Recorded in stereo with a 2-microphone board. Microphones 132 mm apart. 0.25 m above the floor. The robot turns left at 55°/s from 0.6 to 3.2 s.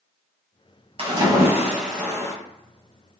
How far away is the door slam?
I don't hear a door slam.